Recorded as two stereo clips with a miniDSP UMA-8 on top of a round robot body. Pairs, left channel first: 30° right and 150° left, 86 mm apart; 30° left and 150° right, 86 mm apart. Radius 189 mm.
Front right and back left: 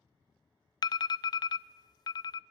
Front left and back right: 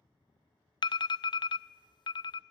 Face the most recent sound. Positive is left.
turn(degrees=5)